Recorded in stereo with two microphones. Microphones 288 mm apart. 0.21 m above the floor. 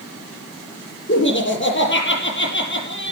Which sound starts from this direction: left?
Laughter, at 1.1 s.